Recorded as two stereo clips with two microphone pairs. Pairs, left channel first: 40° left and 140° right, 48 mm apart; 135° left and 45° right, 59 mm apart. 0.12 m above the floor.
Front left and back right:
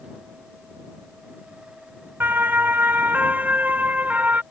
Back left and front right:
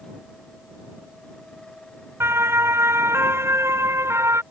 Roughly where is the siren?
Right.